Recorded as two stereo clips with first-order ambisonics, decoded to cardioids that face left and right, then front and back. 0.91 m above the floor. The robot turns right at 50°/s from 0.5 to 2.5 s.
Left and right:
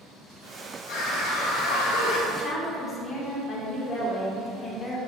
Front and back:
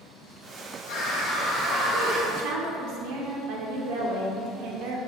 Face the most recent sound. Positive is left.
turn(degrees=165)